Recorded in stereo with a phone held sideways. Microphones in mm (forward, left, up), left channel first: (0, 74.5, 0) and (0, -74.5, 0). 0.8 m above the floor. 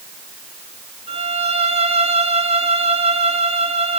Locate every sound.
1.1 s a violin: 40° right (ahead or behind), 1.7 m